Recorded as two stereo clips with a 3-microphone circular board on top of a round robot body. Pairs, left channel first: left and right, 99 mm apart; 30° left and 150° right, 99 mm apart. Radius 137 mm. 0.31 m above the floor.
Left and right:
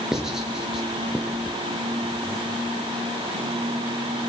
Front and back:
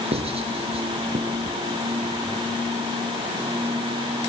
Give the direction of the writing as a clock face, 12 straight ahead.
6 o'clock.